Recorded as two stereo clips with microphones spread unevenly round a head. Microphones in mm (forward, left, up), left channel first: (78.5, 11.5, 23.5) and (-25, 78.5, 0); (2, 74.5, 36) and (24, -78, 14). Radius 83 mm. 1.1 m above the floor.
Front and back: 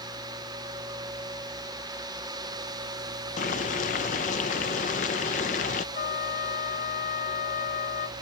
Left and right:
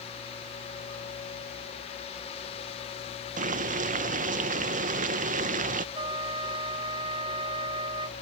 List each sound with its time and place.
3.4 s boiling: 65° right
6.0 s a trumpet: 20° right